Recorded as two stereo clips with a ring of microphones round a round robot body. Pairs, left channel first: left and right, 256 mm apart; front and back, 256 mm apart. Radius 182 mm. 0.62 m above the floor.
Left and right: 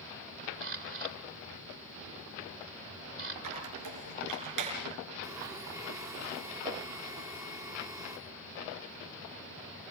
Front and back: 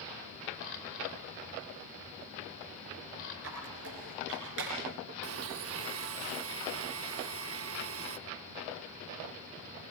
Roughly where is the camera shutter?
Ahead right.